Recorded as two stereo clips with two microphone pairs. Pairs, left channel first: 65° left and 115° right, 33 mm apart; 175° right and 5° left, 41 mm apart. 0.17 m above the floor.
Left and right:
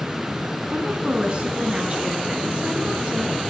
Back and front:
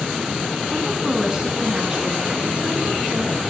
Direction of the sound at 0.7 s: 70° right.